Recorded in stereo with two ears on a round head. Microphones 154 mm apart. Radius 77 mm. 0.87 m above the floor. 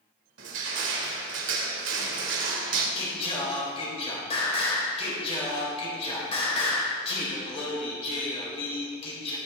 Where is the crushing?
70° right (ahead or behind), 2.5 m.